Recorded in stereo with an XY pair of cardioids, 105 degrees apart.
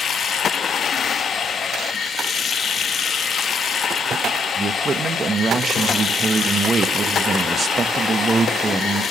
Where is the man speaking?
35° right, 1.4 m.